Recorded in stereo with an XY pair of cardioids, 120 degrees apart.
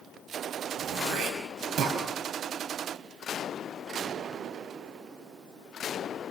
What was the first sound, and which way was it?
Throat clearing, 65° right.